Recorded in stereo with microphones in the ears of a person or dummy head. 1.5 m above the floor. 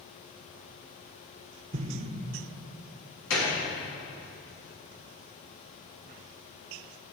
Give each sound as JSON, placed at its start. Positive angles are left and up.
{"t": 1.7, "sound": "an explosion", "side_deg": -40, "distance_m": 0.8}
{"t": 3.3, "sound": "a gunshot", "side_deg": 80, "distance_m": 3.0}